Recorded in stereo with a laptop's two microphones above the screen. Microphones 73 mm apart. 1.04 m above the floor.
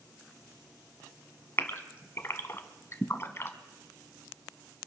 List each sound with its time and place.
1.6 s a gasp: 35° left (ahead or behind), 1.3 m